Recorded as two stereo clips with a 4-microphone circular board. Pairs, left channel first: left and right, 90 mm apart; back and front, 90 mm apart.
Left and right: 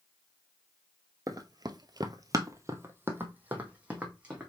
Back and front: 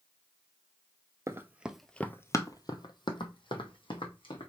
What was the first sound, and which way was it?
Running footsteps, 50° right.